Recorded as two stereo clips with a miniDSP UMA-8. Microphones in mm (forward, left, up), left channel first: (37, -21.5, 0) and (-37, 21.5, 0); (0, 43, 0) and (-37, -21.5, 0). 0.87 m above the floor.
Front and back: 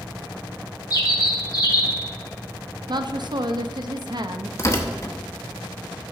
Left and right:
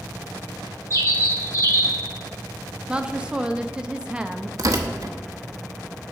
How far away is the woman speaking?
About 0.5 m.